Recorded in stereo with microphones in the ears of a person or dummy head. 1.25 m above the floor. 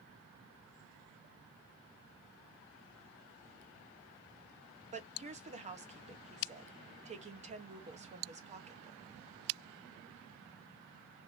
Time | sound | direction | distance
4.9 | a woman speaking | 35° right (ahead or behind) | 0.9 m